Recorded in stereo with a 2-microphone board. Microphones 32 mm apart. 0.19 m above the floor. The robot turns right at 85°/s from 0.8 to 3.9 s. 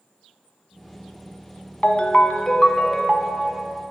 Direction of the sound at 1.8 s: 85° left.